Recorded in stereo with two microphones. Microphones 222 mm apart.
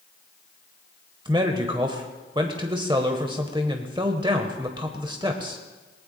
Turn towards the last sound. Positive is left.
turn(degrees=-20)  # may be behind; listen again after turning